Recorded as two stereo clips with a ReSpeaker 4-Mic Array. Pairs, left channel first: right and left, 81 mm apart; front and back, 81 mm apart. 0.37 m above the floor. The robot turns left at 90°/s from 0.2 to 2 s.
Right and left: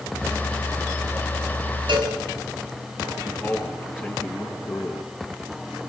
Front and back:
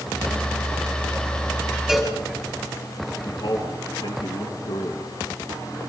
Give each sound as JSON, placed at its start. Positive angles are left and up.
{"t": 1.9, "sound": "a cowbell", "azimuth_deg": 100, "distance_m": 4.5}
{"t": 3.2, "sound": "a man speaking", "azimuth_deg": -25, "distance_m": 3.5}